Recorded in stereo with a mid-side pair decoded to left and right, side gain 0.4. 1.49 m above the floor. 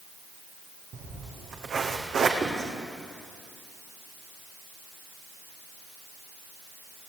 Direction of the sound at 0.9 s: 65° right.